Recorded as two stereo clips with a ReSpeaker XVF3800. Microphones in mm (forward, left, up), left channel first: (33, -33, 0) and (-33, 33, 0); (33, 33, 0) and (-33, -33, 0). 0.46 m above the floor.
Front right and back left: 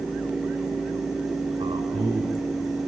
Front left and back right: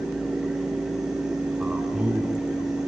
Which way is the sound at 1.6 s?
145° left.